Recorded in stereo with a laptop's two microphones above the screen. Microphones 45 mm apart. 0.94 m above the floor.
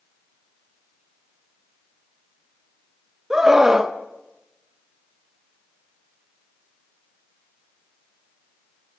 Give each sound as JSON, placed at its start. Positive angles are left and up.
{"t": 3.3, "sound": "a scream", "side_deg": -10, "distance_m": 1.2}